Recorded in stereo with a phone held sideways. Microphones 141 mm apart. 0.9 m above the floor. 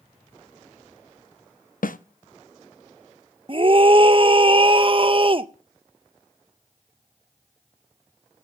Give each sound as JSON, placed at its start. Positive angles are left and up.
{"t": 1.8, "sound": "a snare drum", "side_deg": 85, "distance_m": 0.6}
{"t": 3.5, "sound": "a scream", "side_deg": -40, "distance_m": 0.6}